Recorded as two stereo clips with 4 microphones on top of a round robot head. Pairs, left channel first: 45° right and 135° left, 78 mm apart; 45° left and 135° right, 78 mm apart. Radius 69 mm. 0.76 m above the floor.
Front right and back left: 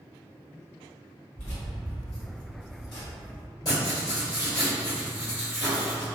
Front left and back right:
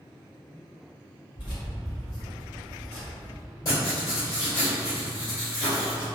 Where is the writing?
Straight ahead, 1.8 m.